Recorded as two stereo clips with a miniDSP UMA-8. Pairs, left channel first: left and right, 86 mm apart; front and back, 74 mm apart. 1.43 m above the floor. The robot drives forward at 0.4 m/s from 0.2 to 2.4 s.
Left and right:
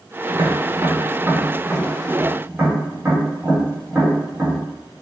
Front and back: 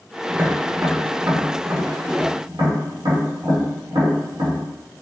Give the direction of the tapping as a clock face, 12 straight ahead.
4 o'clock.